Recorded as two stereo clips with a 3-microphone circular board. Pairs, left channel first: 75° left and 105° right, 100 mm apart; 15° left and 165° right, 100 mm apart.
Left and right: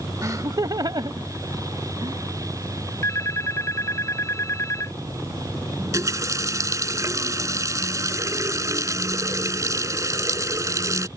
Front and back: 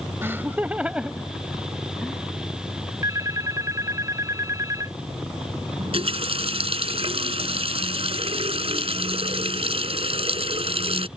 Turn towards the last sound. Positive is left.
turn(degrees=-160)